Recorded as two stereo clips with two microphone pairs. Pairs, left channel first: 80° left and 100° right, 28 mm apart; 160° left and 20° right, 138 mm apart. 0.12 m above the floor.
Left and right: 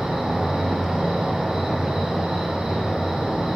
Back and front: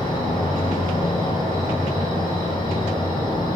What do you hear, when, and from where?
0.0 s an insect: 160° right, 1.6 m